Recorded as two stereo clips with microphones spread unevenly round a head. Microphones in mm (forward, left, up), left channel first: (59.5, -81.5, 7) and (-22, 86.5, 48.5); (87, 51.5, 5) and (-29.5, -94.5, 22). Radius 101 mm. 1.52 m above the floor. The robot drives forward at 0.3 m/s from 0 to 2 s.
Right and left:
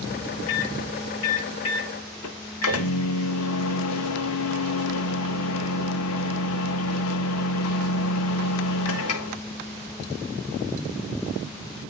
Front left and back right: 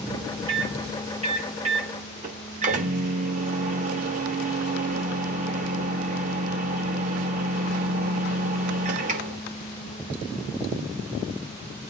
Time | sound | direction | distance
0.5 | a microwave | 65° right | 1.5 m